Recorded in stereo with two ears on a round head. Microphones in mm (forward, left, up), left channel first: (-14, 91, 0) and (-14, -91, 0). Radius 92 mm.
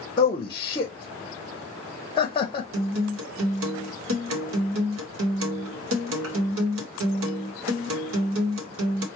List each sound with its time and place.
0.2 s a man speaking: 25° left (ahead or behind), 0.6 m
2.7 s a guitar: 75° right (ahead or behind), 0.9 m